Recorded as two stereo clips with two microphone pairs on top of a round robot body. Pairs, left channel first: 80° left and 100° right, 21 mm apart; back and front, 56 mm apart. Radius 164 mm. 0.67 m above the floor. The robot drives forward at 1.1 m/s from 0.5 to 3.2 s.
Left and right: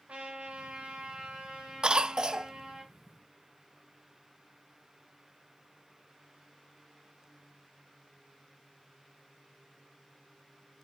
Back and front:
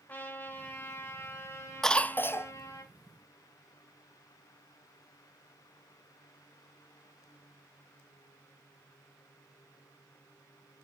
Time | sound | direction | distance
0.1 | a trumpet | 115° right | 2.5 m
1.8 | a cough | 100° right | 0.7 m